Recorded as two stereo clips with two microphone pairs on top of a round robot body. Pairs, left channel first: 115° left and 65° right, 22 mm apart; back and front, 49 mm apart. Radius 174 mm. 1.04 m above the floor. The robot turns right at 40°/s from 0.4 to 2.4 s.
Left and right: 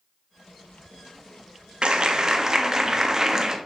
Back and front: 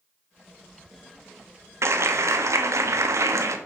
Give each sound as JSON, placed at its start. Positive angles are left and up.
{"t": 1.8, "sound": "a clap", "azimuth_deg": -20, "distance_m": 1.5}